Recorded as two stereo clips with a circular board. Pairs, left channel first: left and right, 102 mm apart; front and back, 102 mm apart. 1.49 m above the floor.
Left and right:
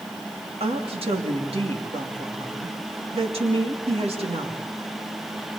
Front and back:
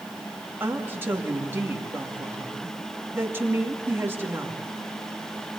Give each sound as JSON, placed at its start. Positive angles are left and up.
{"t": 0.6, "sound": "a woman speaking", "azimuth_deg": -110, "distance_m": 2.5}